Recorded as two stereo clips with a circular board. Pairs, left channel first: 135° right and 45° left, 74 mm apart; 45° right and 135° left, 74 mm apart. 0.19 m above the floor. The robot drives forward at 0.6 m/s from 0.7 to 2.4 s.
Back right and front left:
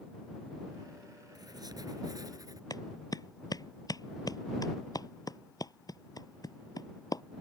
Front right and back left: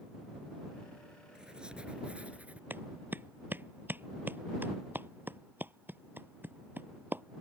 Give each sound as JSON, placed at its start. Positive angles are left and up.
{"t": 1.4, "sound": "writing", "azimuth_deg": 55}
{"t": 2.7, "sound": "a clap", "azimuth_deg": -165}